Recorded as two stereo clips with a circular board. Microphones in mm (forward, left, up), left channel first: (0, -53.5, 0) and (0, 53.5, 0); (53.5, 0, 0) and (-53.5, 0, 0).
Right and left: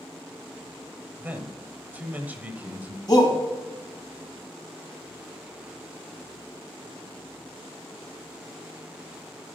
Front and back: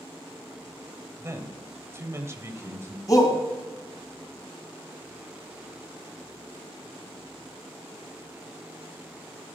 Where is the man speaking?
150° left, 1.1 m.